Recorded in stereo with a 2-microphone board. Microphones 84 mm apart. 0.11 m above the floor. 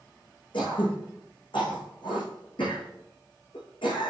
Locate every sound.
0.5 s throat clearing: 75° left (ahead or behind), 4.5 m